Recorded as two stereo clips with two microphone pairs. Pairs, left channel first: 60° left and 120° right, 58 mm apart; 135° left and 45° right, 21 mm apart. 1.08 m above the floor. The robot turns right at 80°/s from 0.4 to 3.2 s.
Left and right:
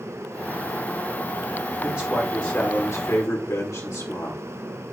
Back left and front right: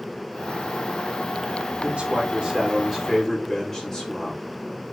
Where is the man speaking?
55° right, 3.5 m; by 4.4 s 55° left, 3.5 m.